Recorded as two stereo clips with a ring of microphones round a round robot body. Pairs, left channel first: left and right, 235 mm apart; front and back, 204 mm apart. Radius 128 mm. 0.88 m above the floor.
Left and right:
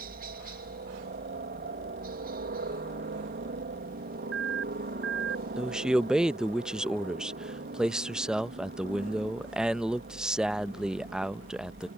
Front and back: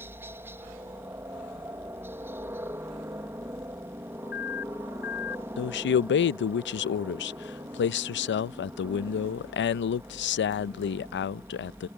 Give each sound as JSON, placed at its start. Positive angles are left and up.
{"t": 0.0, "sound": "a helicopter", "azimuth_deg": -105}
{"t": 4.2, "sound": "an alarm", "azimuth_deg": -50}
{"t": 5.6, "sound": "a man speaking", "azimuth_deg": -5}